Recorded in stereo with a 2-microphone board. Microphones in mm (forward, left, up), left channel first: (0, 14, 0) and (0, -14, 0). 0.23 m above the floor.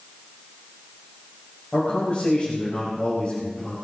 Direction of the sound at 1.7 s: 40° left (ahead or behind).